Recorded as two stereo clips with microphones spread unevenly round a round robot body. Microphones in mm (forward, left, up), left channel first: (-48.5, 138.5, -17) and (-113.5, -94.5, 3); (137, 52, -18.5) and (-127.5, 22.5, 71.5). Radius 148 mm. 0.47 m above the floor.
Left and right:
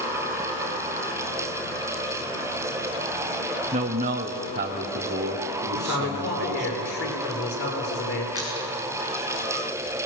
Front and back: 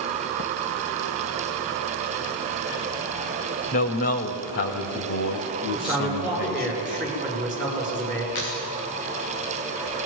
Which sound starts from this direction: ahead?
A squeak, at 8.3 s.